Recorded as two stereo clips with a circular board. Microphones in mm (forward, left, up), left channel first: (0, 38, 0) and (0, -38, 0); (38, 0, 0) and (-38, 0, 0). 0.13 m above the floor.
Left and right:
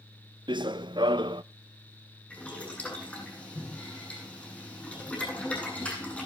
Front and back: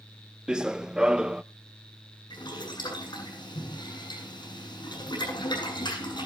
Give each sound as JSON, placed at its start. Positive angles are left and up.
{"t": 0.5, "sound": "running footsteps", "azimuth_deg": -100, "distance_m": 0.6}
{"t": 2.3, "sound": "boiling", "azimuth_deg": 15, "distance_m": 8.0}